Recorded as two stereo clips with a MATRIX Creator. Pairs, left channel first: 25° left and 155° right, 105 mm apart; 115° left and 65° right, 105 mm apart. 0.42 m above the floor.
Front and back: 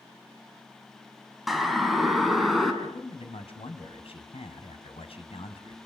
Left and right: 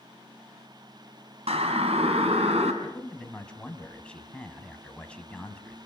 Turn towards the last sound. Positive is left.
turn(degrees=35)